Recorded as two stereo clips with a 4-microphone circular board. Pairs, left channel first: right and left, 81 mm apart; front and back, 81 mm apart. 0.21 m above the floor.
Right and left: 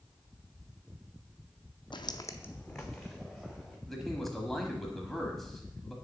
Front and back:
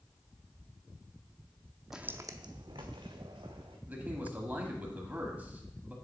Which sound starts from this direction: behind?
A man speaking, at 3.9 s.